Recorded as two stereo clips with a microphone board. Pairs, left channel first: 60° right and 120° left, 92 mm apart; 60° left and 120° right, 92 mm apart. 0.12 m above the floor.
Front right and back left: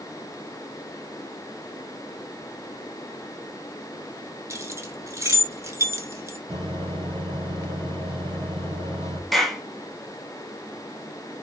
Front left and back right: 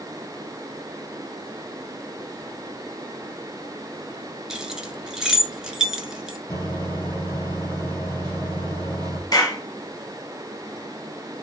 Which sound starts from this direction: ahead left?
A clap, at 9.3 s.